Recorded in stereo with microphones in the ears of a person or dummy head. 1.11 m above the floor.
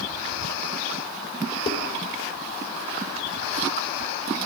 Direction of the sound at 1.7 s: 35° left (ahead or behind).